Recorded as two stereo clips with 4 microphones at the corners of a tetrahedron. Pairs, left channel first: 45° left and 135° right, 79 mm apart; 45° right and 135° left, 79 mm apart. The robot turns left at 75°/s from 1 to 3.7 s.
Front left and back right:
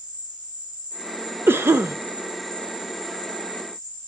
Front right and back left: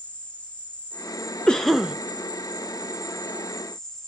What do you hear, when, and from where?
0.0 s an insect: 120° right, 1.7 m; by 4.1 s 40° left, 1.7 m
1.5 s a cough: 115° right, 0.5 m; by 1.9 s 150° right, 0.5 m